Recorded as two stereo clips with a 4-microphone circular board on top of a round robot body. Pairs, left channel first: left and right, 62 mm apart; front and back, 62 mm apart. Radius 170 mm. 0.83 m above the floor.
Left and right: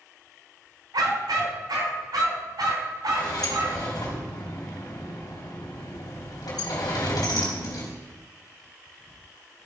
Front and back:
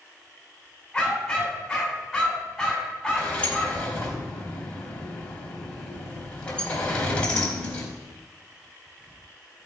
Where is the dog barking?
85° right, 3.5 m.